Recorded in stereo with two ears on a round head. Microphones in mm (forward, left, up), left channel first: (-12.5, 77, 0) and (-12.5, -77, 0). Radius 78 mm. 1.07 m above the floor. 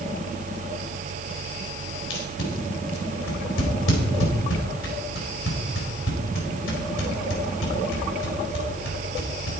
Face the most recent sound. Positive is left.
turn(degrees=80)